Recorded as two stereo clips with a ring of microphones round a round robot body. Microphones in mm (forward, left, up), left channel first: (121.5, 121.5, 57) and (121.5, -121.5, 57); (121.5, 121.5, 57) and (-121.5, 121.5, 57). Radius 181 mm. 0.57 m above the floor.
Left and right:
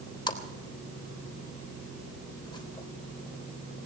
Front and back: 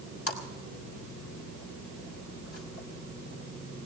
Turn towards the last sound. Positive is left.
turn(degrees=20)